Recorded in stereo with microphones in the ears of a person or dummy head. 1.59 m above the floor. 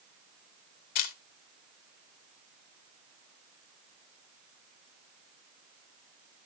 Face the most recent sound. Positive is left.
turn(degrees=45)  # may be behind; listen again after turning